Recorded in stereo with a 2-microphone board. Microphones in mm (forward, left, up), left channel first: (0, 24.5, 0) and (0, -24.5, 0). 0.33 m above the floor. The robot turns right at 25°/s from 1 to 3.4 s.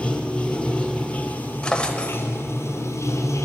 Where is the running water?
25° left, 1.4 m; by 3.5 s 85° left, 1.4 m.